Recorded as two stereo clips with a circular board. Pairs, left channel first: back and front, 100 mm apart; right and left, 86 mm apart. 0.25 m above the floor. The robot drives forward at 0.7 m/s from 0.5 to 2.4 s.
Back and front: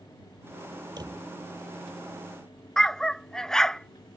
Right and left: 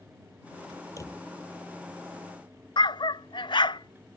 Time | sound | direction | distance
1.0 | a drawer | 40° right | ?
2.8 | a dog barking | 95° right | ?